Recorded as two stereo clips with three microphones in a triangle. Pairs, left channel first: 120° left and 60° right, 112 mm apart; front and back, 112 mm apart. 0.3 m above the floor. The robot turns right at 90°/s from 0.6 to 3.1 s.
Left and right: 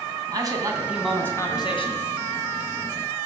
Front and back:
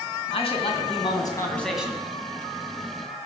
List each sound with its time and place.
0.3 s a man speaking: 10° right, 2.5 m; by 2.1 s 120° left, 2.5 m